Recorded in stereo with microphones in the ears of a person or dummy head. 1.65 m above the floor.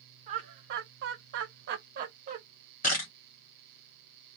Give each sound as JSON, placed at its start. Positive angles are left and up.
{"t": 0.3, "sound": "laughter", "side_deg": -35, "distance_m": 1.0}
{"t": 2.8, "sound": "a camera shutter", "side_deg": 45, "distance_m": 1.2}